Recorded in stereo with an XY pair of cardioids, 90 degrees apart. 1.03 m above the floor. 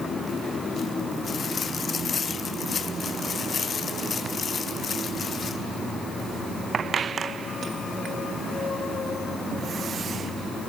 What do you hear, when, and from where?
Only background noise.